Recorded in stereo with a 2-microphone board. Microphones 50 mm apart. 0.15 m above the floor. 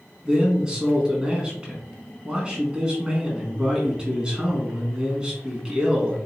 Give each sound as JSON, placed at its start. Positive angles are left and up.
{"t": 0.2, "sound": "a man speaking", "side_deg": -20, "distance_m": 1.3}